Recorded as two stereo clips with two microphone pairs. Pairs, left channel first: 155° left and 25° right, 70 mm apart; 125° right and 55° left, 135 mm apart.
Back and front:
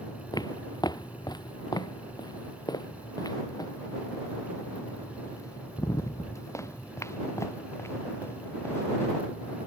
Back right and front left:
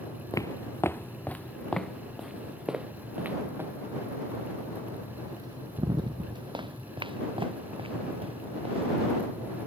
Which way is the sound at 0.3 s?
170° left.